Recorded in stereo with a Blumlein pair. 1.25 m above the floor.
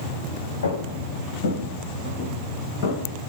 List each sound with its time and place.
0.6 s footsteps: 65° left, 4 m; by 3.0 s 50° left, 5.5 m